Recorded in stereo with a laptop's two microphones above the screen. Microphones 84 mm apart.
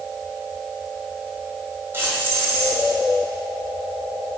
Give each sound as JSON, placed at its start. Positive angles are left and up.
{"t": 1.9, "sound": "keys jangling", "side_deg": -30, "distance_m": 4.5}